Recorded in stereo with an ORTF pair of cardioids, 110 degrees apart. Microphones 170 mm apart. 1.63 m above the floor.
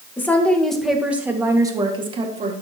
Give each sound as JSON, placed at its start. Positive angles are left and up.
{"t": 0.2, "sound": "a woman speaking", "azimuth_deg": 10, "distance_m": 2.0}